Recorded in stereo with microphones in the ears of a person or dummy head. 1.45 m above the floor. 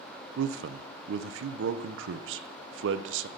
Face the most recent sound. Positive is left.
turn(degrees=-80)